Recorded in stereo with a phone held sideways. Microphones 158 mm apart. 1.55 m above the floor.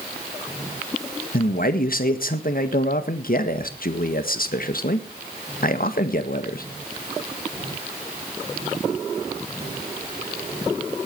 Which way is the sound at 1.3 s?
65° left (ahead or behind).